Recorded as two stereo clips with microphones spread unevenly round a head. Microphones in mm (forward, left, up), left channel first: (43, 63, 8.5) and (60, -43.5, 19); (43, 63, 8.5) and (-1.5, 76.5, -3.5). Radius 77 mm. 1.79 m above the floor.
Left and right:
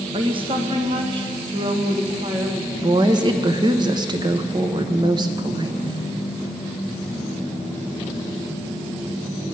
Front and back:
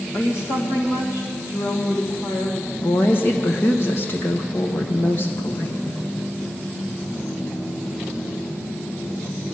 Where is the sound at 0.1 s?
50° right, 1.5 m.